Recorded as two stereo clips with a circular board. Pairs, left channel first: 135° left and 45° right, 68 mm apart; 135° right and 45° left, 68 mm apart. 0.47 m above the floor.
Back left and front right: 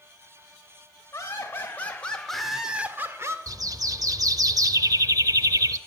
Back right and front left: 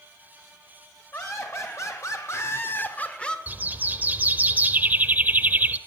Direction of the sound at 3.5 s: 20° right.